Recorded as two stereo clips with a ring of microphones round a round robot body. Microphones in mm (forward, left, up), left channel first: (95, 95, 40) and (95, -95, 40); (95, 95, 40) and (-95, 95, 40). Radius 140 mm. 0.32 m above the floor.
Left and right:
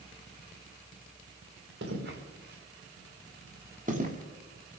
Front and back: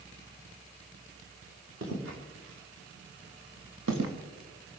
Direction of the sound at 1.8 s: 135° right.